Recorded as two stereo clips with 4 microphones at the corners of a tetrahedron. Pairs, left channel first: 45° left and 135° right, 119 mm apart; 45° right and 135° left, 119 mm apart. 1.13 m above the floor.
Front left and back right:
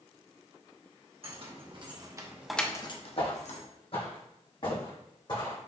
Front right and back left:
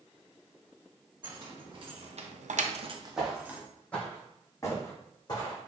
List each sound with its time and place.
1.2 s keys jangling: 170° right, 1.6 m; by 3.6 s 55° left, 1.1 m
3.2 s footsteps: 50° left, 1.9 m; by 5.6 s straight ahead, 2.5 m